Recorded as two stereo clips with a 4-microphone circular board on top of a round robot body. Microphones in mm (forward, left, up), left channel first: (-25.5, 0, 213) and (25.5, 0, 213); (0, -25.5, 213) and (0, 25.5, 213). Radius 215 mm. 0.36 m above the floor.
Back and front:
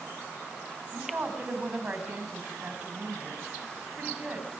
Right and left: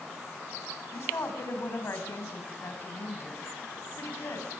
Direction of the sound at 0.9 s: 65° right.